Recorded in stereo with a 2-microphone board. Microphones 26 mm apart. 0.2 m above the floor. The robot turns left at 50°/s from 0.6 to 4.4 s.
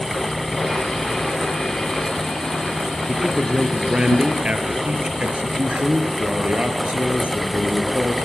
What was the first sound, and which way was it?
A man speaking, 5° left.